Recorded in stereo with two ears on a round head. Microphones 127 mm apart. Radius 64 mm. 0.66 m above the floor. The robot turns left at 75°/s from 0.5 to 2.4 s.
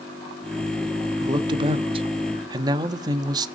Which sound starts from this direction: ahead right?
A man speaking, at 1.2 s.